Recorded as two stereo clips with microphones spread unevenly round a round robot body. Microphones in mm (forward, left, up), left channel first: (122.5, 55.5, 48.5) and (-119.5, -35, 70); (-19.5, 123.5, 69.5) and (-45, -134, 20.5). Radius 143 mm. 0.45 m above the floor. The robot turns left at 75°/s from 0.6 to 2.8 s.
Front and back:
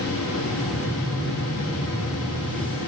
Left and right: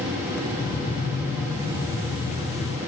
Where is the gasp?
I don't hear a gasp.